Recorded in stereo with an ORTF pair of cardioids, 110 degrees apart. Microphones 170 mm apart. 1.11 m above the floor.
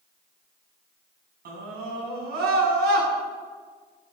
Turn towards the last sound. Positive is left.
turn(degrees=-65)